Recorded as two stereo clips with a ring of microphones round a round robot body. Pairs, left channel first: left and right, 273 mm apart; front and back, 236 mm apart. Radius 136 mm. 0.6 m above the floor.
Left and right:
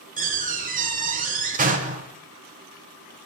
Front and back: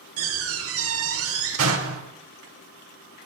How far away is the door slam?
About 1.6 m.